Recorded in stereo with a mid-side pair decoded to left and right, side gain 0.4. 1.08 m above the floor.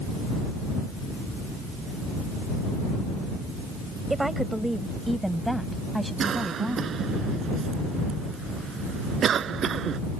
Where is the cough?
60° right.